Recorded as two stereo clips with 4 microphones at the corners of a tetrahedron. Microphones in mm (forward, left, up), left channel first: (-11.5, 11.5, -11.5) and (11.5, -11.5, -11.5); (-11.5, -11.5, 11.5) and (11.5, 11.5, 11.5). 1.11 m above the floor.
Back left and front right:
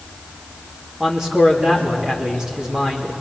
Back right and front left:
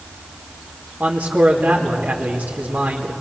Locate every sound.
1.0 s a man speaking: 20° left, 2 m